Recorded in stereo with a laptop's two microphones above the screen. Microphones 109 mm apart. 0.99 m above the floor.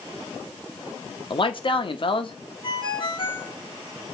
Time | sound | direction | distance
1.3 | a man speaking | 50° left (ahead or behind) | 1.0 m
2.6 | a ringtone | 55° left (ahead or behind) | 2.5 m